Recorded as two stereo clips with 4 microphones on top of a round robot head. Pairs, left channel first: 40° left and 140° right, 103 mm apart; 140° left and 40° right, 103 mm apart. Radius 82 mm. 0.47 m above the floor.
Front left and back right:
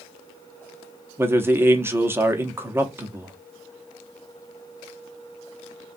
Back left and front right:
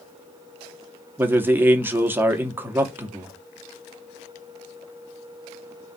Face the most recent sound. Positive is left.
turn(degrees=-95)